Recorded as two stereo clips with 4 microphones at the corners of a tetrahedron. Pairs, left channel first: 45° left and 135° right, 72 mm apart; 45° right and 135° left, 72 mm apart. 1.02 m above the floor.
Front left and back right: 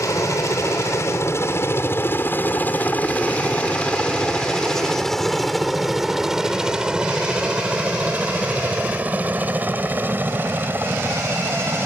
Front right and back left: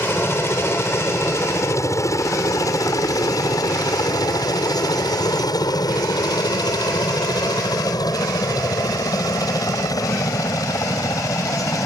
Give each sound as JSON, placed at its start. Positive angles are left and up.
{"t": 0.0, "sound": "a helicopter", "azimuth_deg": 10}